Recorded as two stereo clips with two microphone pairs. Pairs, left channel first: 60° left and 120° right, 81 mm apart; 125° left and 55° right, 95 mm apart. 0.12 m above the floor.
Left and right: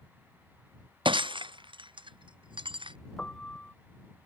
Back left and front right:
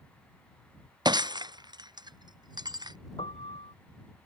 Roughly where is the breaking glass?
Right.